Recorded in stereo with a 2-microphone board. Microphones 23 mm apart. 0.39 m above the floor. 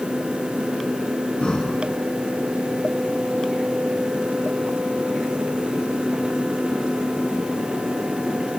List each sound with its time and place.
1.4 s breathing: 35° left (ahead or behind), 2.5 m